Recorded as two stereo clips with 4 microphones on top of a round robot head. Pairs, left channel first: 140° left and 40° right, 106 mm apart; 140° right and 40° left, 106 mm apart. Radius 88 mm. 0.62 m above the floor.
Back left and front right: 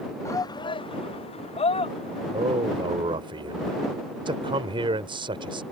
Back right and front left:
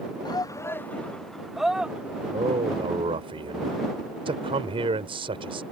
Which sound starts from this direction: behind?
A shout, at 0.2 s.